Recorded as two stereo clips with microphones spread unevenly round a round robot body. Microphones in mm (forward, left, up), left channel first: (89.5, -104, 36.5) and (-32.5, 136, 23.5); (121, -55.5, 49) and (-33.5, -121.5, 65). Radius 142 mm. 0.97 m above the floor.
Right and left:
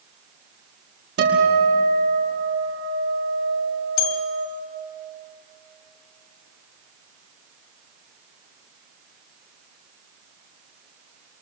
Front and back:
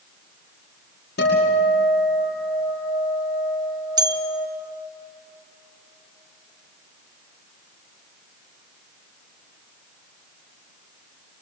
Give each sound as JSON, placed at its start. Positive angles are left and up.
{"t": 1.2, "sound": "a guitar", "azimuth_deg": 70, "distance_m": 5.5}
{"t": 4.0, "sound": "a bell", "azimuth_deg": -100, "distance_m": 1.3}